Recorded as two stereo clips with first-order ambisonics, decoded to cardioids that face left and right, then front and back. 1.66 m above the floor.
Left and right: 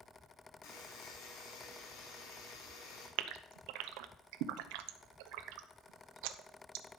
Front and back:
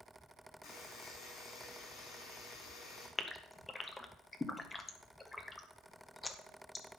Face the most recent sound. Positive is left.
turn(degrees=-80)